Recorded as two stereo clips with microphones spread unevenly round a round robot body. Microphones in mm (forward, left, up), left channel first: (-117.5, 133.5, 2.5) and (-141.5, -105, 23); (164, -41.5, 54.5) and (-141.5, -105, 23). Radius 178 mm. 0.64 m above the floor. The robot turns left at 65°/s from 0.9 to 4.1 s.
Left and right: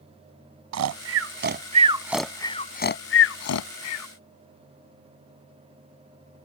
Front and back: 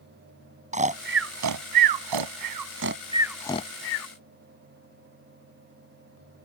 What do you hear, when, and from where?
0.7 s snoring: 100° right; by 4.1 s 55° left